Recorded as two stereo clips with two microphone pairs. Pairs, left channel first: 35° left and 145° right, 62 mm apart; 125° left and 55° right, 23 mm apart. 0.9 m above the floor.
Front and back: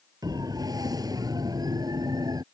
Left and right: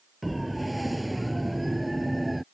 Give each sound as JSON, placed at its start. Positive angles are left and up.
{"t": 0.2, "sound": "a siren", "azimuth_deg": -145}